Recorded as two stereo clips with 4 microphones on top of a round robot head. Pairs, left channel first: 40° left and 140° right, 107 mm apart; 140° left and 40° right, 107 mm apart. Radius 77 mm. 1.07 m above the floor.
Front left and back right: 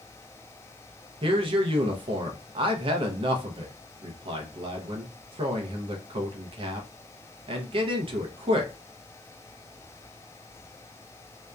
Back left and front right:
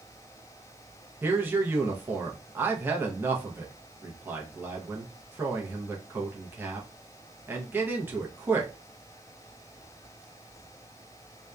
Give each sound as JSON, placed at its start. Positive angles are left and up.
{"t": 1.2, "sound": "a man speaking", "azimuth_deg": -110, "distance_m": 0.6}